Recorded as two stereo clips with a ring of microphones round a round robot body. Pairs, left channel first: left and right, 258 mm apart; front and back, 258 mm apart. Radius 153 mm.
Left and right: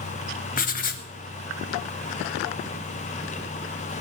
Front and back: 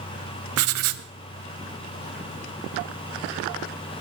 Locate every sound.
0.6 s writing: 150° left, 0.8 m